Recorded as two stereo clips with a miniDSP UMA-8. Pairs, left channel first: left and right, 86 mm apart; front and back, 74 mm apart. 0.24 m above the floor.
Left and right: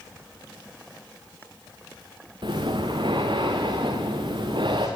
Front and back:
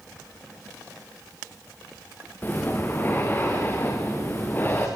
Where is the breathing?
65° right, 4 m.